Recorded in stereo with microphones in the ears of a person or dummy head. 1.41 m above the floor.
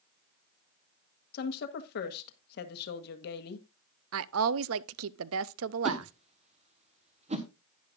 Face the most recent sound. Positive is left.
turn(degrees=-35)  # may be behind; listen again after turning